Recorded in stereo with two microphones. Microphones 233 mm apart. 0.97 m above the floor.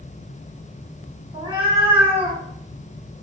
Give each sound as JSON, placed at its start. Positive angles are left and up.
{"t": 1.3, "sound": "a cat meowing", "side_deg": -20, "distance_m": 1.2}